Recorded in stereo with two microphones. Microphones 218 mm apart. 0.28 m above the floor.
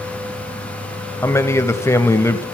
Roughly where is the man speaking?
Centre.